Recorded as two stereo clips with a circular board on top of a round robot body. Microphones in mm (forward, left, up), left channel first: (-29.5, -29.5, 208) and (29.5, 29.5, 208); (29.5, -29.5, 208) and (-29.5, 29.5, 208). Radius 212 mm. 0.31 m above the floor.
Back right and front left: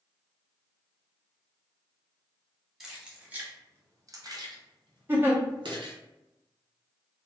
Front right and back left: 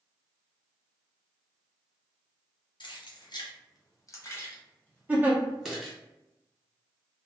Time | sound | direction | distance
2.8 | keys jangling | 45° right | 1.1 m
5.1 | a giggle | 85° left | 1.3 m